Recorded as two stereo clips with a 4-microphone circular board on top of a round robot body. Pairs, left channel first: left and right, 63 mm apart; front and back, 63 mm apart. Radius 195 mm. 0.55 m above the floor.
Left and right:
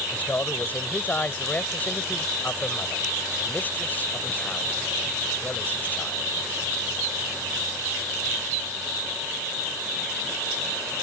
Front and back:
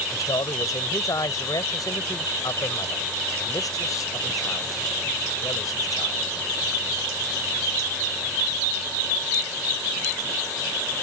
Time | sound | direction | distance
0.1 | a man speaking | 25° left | ?